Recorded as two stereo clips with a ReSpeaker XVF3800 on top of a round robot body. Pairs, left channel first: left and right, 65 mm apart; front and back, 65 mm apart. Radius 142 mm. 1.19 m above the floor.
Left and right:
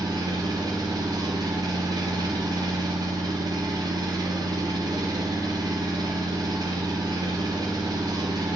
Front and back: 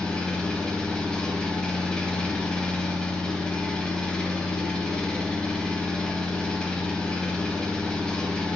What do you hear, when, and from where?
0.0 s an engine running: 80° right, 1.3 m